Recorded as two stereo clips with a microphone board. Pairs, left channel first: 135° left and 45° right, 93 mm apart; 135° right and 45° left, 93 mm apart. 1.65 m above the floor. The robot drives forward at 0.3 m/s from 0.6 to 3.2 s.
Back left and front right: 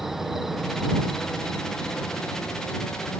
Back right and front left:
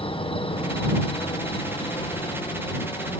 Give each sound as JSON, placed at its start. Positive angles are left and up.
{"t": 0.0, "sound": "an insect", "azimuth_deg": -130}